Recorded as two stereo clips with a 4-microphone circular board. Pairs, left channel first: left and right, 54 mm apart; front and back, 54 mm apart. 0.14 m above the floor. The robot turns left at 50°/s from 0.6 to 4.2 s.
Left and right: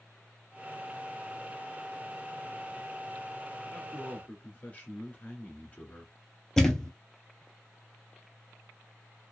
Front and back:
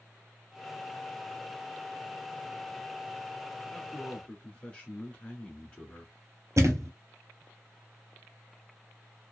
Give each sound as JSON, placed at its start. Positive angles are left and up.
{"t": 3.7, "sound": "a man speaking", "azimuth_deg": 75, "distance_m": 1.3}
{"t": 6.6, "sound": "a thud", "azimuth_deg": 170, "distance_m": 0.7}